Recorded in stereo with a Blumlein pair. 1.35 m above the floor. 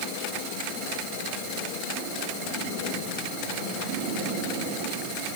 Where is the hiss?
I don't hear a hiss.